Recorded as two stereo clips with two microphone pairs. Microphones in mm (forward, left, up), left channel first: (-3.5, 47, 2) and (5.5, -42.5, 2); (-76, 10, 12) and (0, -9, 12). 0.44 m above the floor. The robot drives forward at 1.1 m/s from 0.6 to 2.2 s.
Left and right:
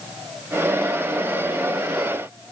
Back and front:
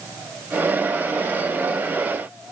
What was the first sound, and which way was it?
Only background noise.